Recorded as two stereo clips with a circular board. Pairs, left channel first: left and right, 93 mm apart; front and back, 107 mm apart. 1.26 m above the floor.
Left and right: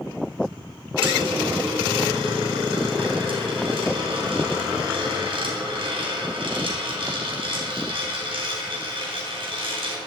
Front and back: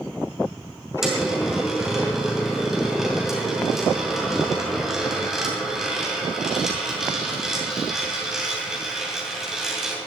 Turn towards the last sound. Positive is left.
turn(degrees=-95)